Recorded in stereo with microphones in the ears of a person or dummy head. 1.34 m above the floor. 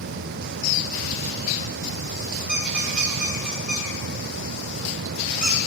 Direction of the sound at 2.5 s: 5° right (ahead or behind).